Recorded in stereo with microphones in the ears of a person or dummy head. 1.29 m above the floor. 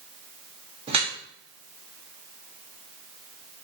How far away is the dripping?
About 0.8 m.